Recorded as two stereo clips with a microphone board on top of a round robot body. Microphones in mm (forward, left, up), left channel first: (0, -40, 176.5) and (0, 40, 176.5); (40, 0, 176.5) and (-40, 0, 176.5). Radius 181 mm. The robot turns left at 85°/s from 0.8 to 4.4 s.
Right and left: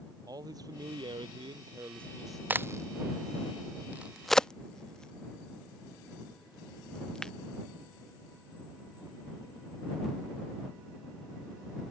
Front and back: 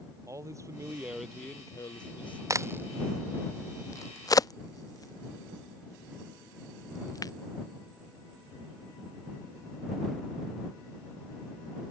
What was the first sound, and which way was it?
A man speaking, 130° left.